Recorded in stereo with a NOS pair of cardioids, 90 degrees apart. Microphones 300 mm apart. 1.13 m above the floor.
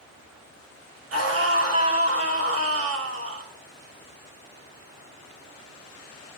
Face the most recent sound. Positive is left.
turn(degrees=-50)